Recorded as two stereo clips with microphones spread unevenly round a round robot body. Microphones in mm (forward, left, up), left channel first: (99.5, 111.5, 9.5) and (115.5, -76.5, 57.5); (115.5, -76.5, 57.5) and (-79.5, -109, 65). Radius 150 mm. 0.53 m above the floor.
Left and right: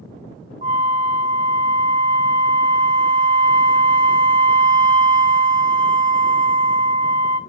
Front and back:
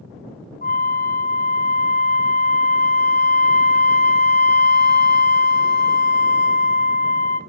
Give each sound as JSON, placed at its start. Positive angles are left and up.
{"t": 0.6, "sound": "a flute", "azimuth_deg": -30, "distance_m": 1.9}